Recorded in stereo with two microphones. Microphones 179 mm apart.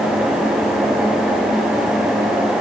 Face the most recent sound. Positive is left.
No sound to turn to.